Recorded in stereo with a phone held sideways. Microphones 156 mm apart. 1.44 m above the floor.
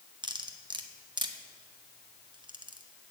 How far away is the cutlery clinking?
About 0.8 m.